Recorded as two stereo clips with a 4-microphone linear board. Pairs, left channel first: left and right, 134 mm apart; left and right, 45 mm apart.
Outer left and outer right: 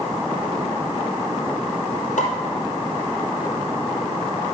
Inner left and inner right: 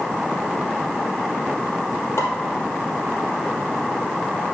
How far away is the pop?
About 2.5 m.